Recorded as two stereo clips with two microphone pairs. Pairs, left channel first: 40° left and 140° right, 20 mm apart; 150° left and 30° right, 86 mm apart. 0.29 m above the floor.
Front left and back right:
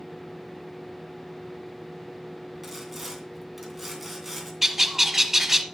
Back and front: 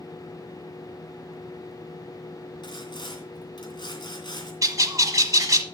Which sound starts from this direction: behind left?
Sawing, at 2.6 s.